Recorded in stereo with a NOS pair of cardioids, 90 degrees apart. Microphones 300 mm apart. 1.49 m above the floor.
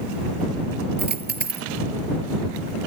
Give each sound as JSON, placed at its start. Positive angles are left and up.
{"t": 1.0, "sound": "a dropped coin", "azimuth_deg": -35}